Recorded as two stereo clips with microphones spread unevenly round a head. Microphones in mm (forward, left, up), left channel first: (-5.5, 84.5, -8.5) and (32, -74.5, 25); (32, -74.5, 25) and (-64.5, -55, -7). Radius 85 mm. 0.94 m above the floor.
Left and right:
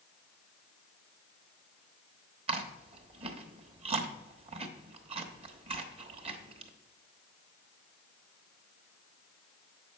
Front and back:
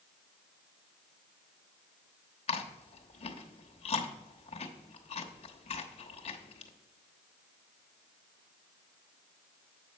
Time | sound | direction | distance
2.5 | chewing | 20° right | 1.0 m